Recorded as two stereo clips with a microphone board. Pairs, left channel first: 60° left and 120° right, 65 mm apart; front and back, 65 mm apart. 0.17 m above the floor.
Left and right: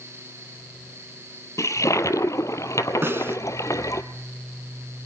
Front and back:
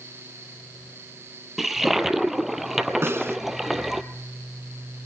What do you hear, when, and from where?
1.6 s a toilet flushing: 95° left, 1.2 m
3.0 s a snare drum: 150° right, 1.2 m